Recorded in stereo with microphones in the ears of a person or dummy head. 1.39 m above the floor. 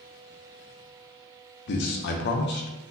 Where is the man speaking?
55° left (ahead or behind), 0.5 m.